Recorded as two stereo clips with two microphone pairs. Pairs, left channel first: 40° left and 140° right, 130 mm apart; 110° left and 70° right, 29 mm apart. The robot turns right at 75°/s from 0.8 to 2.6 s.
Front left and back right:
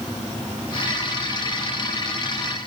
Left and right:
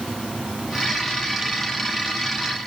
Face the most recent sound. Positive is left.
No sound to turn to.